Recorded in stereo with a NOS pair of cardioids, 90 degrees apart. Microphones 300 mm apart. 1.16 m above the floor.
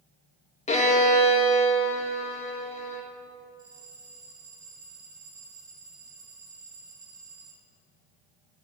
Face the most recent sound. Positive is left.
turn(degrees=-45)